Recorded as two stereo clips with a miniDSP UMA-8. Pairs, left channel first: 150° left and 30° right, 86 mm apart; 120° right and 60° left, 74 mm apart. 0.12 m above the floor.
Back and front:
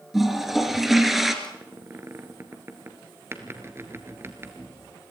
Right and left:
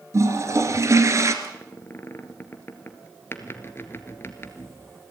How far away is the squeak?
About 1.5 m.